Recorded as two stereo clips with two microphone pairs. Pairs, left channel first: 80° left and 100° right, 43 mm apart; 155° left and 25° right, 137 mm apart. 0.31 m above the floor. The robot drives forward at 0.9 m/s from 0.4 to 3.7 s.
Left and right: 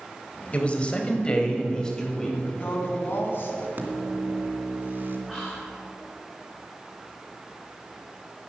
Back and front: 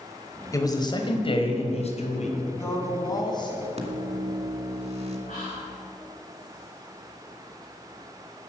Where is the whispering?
175° left, 4 m.